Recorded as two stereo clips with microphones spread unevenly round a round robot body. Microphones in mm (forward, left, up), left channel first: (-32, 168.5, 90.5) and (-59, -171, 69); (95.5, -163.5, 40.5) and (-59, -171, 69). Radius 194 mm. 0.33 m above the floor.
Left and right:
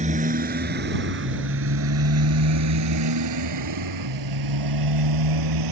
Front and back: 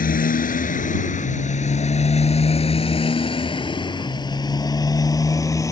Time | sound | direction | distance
0.0 | a motorcycle | 25° right | ?